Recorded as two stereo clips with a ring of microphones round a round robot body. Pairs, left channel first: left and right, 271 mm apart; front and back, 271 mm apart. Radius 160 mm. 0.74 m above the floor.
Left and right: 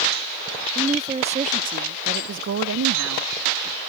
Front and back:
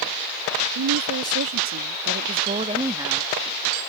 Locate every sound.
0.8 s a woman speaking: 165° right; by 3.3 s 95° right